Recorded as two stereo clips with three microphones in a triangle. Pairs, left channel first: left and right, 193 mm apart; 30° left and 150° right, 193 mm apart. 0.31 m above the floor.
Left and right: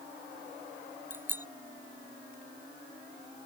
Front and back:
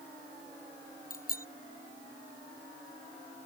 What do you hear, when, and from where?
1.1 s a bicycle bell: 10° right